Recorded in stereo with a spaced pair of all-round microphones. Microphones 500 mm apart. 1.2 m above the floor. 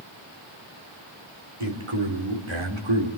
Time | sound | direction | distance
1.6 | a man speaking | 75° right (ahead or behind) | 3.5 m